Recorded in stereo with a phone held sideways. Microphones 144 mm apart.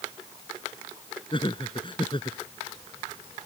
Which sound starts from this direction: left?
Laughter, at 1.3 s.